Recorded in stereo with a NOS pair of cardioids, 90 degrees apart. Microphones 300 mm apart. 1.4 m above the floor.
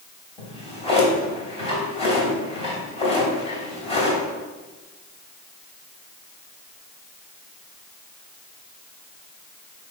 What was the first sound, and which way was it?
A drawer, 20° left.